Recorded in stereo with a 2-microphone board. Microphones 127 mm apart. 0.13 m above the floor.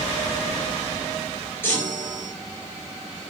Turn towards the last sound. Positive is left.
turn(degrees=20)  # may be behind; listen again after turning